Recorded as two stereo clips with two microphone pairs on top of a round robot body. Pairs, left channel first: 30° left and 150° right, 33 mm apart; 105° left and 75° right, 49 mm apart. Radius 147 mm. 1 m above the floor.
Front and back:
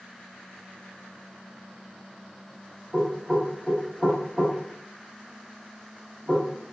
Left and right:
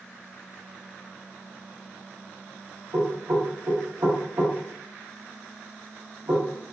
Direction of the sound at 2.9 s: 70° right.